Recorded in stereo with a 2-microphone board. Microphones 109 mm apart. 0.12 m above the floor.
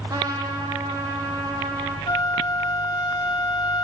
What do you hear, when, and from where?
0.1 s a trumpet: 30° right (ahead or behind), 4.5 m
2.1 s a flute: 35° left (ahead or behind), 0.9 m